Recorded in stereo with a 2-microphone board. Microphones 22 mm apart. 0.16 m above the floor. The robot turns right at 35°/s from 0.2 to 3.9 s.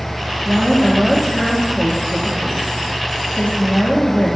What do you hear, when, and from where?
0.5 s a woman speaking: 15° right, 4 m; by 4.4 s 110° left, 4 m